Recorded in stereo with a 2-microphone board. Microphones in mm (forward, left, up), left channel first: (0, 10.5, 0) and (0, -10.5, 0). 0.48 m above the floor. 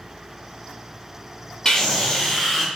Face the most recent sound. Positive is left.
turn(degrees=5)  # may be behind; listen again after turning